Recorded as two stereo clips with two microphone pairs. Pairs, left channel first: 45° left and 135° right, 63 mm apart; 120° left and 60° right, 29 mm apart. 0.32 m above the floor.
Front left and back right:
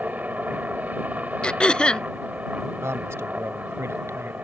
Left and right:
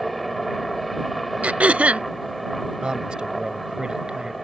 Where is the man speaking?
110° right.